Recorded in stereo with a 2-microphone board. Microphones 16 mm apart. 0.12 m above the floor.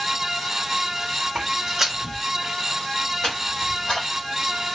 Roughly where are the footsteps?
Right.